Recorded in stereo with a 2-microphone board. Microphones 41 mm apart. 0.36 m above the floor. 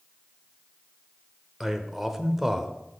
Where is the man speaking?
10° right (ahead or behind), 0.8 m.